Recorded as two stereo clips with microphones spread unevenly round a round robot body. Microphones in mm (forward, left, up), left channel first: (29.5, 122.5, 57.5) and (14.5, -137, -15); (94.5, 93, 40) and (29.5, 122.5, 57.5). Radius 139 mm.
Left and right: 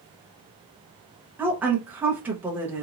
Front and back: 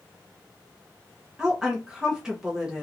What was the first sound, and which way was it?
A woman speaking, 110° right.